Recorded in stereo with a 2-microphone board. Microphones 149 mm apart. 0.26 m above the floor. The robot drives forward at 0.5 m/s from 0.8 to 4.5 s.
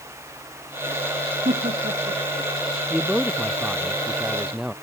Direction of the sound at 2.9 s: 5° right (ahead or behind).